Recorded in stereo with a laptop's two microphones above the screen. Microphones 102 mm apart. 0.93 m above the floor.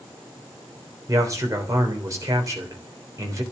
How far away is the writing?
I don't hear writing.